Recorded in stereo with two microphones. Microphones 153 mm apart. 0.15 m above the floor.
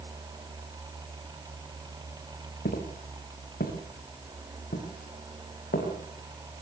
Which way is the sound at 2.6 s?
85° left.